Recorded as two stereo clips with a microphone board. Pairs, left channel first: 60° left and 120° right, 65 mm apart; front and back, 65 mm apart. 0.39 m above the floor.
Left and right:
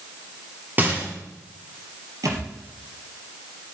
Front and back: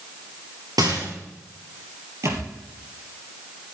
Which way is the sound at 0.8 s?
Straight behind.